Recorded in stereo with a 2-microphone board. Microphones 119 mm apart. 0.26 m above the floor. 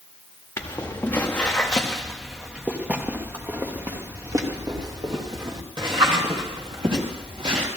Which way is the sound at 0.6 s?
25° left (ahead or behind).